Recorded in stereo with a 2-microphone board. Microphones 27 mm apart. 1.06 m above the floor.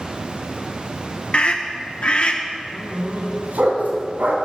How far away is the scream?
About 0.9 m.